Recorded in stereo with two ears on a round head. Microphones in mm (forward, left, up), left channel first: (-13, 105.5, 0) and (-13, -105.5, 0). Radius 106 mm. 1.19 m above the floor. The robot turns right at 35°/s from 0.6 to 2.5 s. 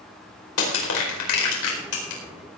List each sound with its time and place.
0.6 s crushing: 65° left (ahead or behind), 4.5 m; by 2.2 s 60° left (ahead or behind), 4.5 m